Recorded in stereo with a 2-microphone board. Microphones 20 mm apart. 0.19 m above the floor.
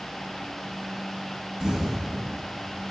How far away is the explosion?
About 1.4 m.